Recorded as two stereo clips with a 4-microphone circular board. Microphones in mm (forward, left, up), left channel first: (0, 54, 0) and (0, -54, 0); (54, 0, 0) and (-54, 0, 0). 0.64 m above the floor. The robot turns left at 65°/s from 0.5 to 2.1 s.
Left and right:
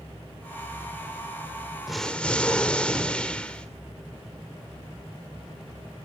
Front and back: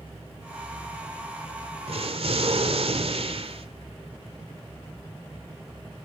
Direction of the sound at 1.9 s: 175° right.